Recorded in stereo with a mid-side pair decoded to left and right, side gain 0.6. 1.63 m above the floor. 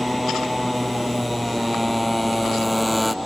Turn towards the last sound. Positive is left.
turn(degrees=0)